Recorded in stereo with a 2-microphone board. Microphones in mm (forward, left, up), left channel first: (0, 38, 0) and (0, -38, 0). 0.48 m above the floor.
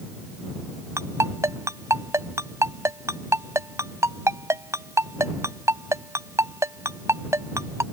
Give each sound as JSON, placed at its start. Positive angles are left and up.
{"t": 1.0, "sound": "a ringtone", "side_deg": -35}